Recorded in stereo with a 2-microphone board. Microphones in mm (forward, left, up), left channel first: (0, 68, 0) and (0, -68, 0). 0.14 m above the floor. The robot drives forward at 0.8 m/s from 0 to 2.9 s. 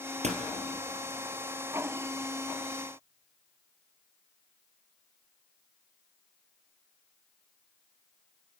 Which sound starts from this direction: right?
A door slam, at 0.2 s.